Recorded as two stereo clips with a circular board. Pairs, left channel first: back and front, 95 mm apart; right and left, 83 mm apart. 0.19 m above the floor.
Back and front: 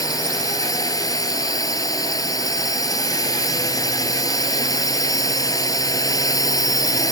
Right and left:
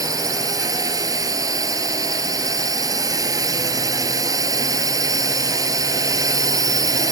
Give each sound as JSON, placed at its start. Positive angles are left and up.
{"t": 0.0, "sound": "a drone", "azimuth_deg": 135}